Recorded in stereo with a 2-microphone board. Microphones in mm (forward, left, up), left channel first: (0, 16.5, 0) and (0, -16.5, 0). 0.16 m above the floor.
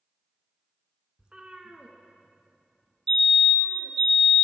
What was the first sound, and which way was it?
A cat meowing, 20° right (ahead or behind).